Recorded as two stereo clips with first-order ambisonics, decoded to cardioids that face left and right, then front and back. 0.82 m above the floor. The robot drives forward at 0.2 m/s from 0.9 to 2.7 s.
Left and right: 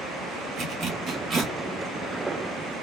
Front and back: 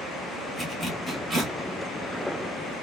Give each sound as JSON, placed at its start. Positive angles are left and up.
{"t": 0.6, "sound": "a zipper", "azimuth_deg": -100, "distance_m": 1.1}